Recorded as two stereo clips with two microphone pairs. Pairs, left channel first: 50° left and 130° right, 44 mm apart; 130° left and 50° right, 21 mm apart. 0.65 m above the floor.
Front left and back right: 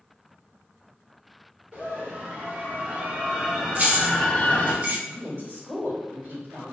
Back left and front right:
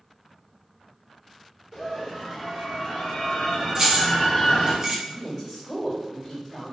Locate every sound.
1.7 s a scream: 170° right, 1.8 m; by 4.8 s 85° left, 0.8 m
3.8 s keys jangling: 100° right, 0.7 m
5.0 s a woman speaking: 160° right, 1.9 m